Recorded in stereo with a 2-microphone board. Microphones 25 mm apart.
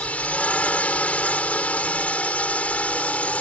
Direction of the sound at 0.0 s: 75° left (ahead or behind).